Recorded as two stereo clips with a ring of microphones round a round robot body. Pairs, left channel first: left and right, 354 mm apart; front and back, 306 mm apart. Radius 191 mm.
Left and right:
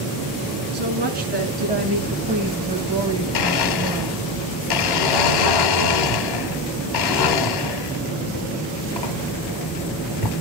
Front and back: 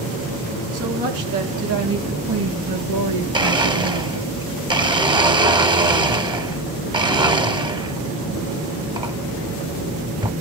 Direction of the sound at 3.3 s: 105° left.